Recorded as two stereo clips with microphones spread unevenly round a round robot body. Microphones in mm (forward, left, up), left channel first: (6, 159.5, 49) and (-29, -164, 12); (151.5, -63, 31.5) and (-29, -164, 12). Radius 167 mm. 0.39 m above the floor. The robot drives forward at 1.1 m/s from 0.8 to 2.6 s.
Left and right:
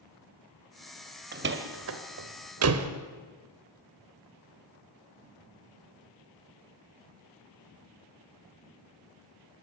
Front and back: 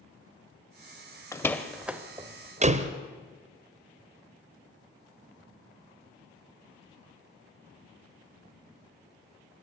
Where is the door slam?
45° right, 1.7 m; by 2.9 s 110° right, 1.5 m.